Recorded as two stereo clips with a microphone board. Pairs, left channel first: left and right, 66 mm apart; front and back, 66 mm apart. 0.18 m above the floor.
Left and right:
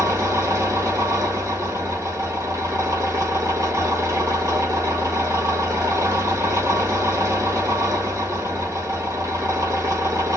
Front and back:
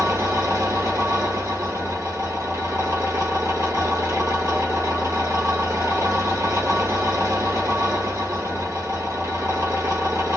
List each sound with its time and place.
0.0 s an engine running: 135° right, 1.2 m